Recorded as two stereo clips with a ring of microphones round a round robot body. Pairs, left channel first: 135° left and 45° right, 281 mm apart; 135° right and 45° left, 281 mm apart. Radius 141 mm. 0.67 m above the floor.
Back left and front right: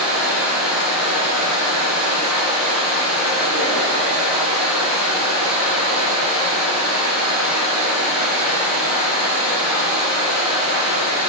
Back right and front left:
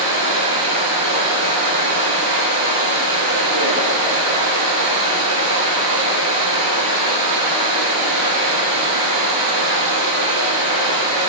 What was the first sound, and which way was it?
Running water, 25° left.